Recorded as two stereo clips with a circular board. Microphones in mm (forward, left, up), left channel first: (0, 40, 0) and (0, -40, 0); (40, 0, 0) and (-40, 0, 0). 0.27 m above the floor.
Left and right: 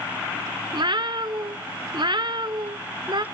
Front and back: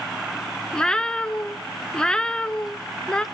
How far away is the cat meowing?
About 0.6 m.